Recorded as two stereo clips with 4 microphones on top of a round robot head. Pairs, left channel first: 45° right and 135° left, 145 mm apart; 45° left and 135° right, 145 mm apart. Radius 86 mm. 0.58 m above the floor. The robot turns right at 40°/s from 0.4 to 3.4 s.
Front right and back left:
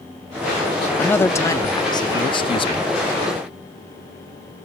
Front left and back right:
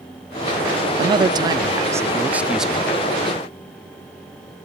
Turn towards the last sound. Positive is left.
turn(degrees=-20)